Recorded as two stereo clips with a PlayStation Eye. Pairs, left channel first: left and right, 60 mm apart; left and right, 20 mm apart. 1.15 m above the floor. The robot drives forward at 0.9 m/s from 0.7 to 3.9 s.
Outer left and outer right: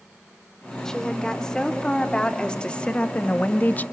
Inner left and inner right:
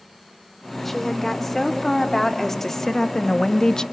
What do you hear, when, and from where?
0.8 s a woman speaking: 10° left (ahead or behind), 4 m; by 3.8 s 30° left (ahead or behind), 1.3 m